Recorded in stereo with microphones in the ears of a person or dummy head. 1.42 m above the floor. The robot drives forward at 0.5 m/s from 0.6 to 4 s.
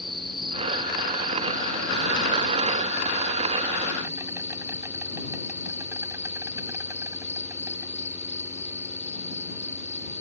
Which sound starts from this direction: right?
An insect, at 0.0 s.